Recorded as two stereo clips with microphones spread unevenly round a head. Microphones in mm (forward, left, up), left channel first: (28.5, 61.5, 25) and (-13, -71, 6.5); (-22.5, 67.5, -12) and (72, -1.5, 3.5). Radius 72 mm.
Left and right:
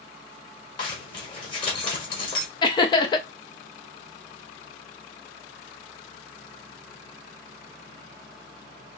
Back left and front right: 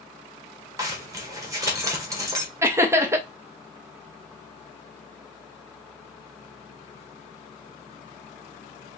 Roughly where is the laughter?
Ahead left.